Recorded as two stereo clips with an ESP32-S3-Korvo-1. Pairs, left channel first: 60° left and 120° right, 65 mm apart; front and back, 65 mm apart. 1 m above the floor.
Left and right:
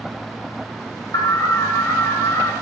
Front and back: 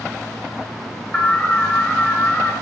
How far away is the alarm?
About 2.5 m.